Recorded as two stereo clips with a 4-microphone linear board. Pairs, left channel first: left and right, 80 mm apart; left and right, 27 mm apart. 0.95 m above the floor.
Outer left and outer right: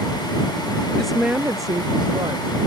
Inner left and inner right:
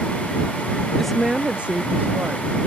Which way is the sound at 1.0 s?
5° left (ahead or behind).